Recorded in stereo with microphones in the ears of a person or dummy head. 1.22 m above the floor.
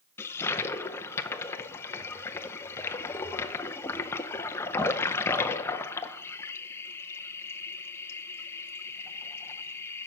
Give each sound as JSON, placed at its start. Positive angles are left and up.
{"t": 0.2, "sound": "a toilet flushing", "side_deg": 15, "distance_m": 0.5}